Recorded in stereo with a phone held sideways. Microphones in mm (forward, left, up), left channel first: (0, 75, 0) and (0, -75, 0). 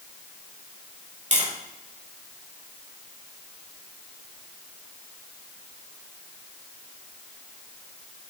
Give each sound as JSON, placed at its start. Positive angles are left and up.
{"t": 1.3, "sound": "tapping", "side_deg": -55, "distance_m": 3.0}